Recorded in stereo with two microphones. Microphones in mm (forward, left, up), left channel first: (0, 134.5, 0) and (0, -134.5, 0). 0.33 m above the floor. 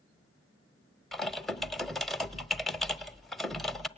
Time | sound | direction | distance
1.1 | typing on a keyboard | centre (ahead or behind) | 0.8 m